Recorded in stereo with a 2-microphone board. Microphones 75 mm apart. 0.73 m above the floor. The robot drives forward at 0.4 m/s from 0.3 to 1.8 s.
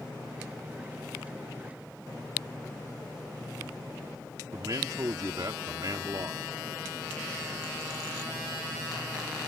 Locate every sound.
4.5 s a man speaking: 55° right (ahead or behind)